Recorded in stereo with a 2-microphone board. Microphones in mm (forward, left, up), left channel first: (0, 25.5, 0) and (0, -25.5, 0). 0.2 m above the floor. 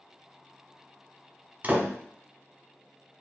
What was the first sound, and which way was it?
A door slam, 35° right (ahead or behind).